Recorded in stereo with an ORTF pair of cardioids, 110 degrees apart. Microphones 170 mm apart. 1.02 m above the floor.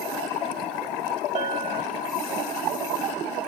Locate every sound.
1.4 s a bell: 50° right, 1.2 m